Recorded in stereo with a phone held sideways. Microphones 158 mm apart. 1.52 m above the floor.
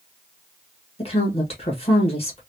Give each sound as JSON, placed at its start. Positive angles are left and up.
{"t": 1.0, "sound": "a woman speaking", "side_deg": 40, "distance_m": 1.6}